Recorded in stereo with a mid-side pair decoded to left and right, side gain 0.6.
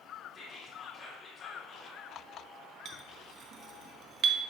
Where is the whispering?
30° left, 1.9 m.